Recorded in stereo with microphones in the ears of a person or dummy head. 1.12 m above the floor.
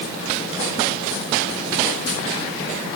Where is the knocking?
No knocking in this recording.